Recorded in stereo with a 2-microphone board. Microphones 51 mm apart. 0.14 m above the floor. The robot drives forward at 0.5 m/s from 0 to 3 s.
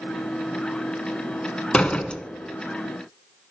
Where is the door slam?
20° left (ahead or behind), 1.1 m.